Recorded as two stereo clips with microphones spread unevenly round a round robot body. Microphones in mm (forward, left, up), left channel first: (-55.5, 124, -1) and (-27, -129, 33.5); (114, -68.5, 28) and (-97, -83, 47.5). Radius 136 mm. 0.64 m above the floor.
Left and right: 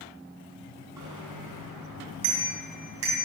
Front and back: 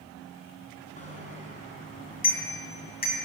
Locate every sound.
1.0 s a bicycle bell: 50° right, 4.5 m; by 3.2 s 40° right, 3.5 m